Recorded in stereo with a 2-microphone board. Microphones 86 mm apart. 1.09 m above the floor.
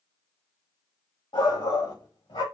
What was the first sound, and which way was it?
A shout, 70° left (ahead or behind).